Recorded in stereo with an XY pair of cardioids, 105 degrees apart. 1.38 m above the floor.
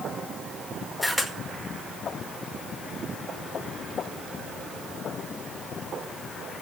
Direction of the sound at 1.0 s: 5° left.